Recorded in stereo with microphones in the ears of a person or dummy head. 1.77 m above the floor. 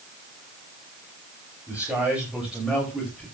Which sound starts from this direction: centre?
A man speaking, at 1.7 s.